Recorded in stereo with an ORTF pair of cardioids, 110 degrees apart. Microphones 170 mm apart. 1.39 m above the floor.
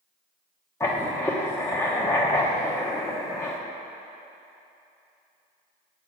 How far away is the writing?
About 1.0 m.